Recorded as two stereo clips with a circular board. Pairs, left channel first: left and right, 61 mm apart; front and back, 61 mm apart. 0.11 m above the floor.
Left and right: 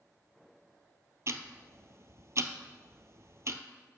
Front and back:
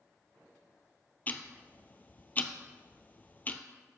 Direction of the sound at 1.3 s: 55° right.